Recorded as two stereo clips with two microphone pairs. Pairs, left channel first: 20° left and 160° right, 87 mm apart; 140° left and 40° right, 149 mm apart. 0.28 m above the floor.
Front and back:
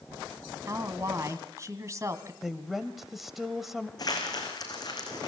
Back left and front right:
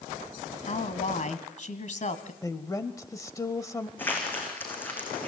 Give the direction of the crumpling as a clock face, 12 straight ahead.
10 o'clock.